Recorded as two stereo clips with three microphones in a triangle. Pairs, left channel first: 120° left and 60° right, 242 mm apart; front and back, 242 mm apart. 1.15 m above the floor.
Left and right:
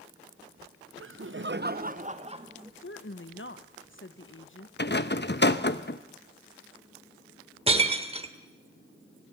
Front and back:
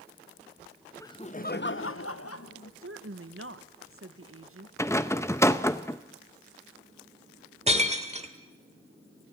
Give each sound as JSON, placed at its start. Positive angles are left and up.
{"t": 1.0, "sound": "laughter", "azimuth_deg": -75, "distance_m": 0.8}
{"t": 2.8, "sound": "a woman speaking", "azimuth_deg": 155, "distance_m": 1.1}
{"t": 4.8, "sound": "a rattle", "azimuth_deg": 80, "distance_m": 0.8}
{"t": 7.7, "sound": "breaking glass", "azimuth_deg": -125, "distance_m": 1.3}